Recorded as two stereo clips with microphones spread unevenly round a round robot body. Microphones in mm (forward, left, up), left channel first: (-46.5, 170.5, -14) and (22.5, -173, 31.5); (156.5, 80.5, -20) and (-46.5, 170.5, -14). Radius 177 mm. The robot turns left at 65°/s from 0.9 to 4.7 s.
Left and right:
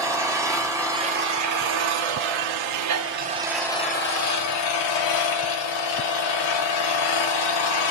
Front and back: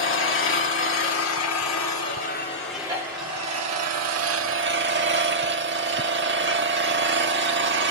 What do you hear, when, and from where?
0.0 s an engine running: 5° left, 1.8 m; by 7.9 s 120° left, 1.8 m